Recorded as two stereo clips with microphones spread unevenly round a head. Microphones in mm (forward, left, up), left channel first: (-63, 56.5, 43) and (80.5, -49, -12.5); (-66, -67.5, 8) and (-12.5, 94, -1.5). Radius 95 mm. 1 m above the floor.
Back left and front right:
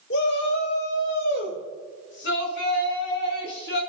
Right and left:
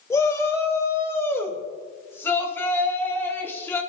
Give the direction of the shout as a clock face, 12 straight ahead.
6 o'clock.